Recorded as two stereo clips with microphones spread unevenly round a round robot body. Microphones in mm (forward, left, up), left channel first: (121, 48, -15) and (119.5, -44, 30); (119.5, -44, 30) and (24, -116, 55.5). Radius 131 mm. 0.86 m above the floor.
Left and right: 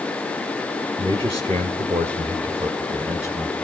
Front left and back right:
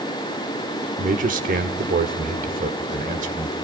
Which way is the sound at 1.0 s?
170° right.